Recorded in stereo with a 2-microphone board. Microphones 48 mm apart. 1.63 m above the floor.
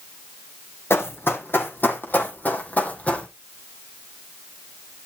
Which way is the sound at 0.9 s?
55° left (ahead or behind).